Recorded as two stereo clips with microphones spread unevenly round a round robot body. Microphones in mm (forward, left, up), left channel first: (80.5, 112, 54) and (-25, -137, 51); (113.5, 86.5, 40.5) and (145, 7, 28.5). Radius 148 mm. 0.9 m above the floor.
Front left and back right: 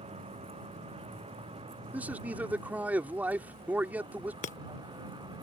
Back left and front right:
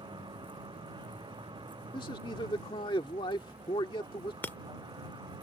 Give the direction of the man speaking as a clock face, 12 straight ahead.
7 o'clock.